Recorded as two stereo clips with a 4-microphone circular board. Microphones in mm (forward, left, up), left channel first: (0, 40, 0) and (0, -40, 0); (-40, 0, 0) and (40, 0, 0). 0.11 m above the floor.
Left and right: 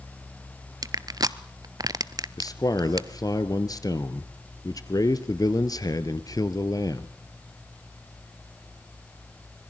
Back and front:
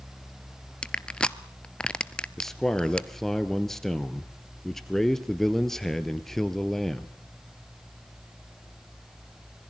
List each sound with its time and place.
0.8 s crushing: 105° right, 0.7 m
2.4 s a man speaking: 95° left, 1.6 m